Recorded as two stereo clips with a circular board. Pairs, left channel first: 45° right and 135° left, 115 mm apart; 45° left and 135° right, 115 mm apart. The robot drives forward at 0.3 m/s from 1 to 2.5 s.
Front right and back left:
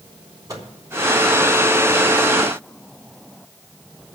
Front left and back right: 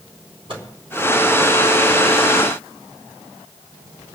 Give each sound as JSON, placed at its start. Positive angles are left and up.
{"t": 0.5, "sound": "a microwave", "azimuth_deg": -165, "distance_m": 3.5}